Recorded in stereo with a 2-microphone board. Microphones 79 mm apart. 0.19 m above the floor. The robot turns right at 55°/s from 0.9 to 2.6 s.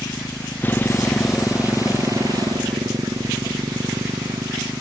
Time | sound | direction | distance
0.0 | a motorcycle | 25° left (ahead or behind) | ?